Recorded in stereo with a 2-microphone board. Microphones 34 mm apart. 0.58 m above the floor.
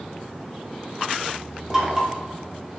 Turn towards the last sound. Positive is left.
turn(degrees=-20)  # may be behind; listen again after turning